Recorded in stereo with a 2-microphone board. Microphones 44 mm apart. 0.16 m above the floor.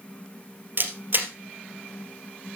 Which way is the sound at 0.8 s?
45° right (ahead or behind).